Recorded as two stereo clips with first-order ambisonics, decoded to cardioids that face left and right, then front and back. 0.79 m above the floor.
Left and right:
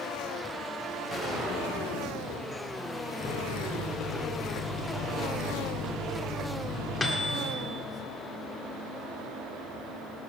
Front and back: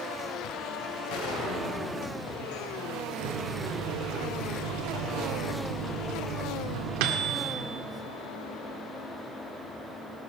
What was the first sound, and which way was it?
A gunshot, 15° left.